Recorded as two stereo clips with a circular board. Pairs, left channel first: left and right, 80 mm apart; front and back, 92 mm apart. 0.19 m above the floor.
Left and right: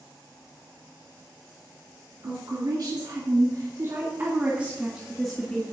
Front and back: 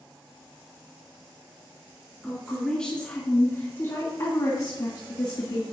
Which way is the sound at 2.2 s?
90° right.